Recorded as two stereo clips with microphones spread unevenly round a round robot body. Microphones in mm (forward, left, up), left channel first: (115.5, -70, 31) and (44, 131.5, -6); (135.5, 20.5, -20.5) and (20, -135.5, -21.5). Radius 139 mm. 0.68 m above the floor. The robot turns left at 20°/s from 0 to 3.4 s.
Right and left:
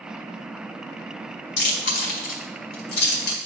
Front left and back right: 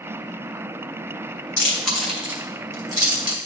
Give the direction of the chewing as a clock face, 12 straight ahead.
1 o'clock.